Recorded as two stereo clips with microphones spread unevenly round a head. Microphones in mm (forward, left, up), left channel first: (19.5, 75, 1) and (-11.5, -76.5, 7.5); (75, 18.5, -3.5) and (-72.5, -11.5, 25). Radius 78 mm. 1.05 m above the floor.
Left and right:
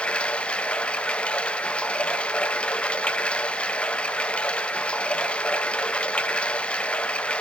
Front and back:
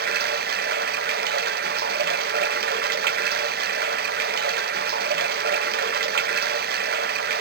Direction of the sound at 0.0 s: 160° left.